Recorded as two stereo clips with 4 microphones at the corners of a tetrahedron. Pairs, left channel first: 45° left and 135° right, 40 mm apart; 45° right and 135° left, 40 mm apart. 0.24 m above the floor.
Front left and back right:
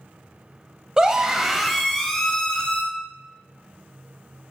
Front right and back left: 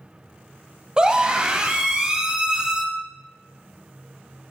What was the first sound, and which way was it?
A scream, straight behind.